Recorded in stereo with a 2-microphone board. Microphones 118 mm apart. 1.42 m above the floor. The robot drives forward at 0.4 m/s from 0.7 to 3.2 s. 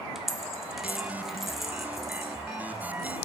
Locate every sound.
0.1 s a dropped coin: 5° right (ahead or behind), 0.8 m; by 3.2 s centre (ahead or behind), 1.6 m